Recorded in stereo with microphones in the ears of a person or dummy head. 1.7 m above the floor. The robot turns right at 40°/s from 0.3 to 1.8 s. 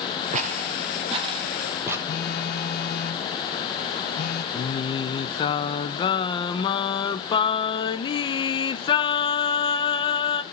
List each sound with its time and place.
0.3 s footsteps: 40° right (ahead or behind), 2.5 m; by 2.0 s 10° right (ahead or behind), 3.5 m
2.1 s a phone buzzing: 55° left (ahead or behind), 1.3 m
4.5 s singing: 25° left (ahead or behind), 1.1 m